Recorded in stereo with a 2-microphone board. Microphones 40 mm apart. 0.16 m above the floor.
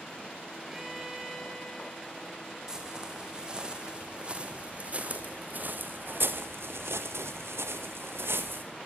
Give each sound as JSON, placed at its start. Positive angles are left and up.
{"t": 0.7, "sound": "a violin", "side_deg": -10, "distance_m": 4.0}
{"t": 2.7, "sound": "footsteps", "side_deg": -15, "distance_m": 5.5}